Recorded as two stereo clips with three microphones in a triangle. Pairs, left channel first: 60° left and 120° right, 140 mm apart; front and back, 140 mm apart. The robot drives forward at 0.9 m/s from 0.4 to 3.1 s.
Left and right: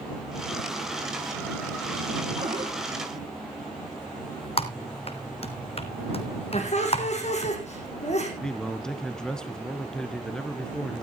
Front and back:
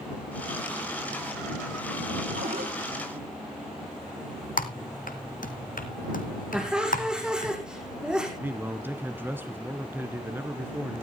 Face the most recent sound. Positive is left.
turn(degrees=135)